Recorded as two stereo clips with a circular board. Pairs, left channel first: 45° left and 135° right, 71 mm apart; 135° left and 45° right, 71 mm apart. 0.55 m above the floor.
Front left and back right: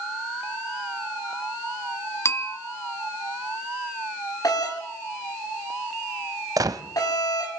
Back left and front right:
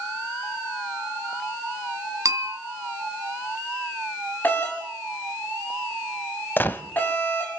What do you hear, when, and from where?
2.2 s a bell: 5° right, 2.0 m
4.4 s a doorbell: 70° left, 6 m
6.6 s a gunshot: 165° right, 1.2 m